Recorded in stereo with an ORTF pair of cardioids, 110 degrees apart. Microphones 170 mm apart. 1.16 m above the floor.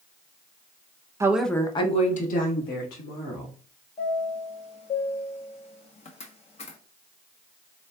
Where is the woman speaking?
15° right, 0.8 m; by 3.5 s 70° left, 2.5 m.